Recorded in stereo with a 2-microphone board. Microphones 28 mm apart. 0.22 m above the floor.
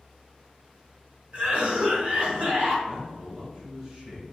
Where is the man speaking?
45° right (ahead or behind), 1.7 m.